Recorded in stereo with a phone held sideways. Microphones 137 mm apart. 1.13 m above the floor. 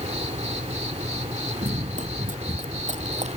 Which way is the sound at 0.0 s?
50° right (ahead or behind).